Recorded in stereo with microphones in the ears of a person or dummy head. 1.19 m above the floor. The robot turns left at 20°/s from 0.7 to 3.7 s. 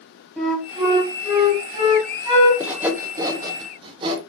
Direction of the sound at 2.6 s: 10° right (ahead or behind).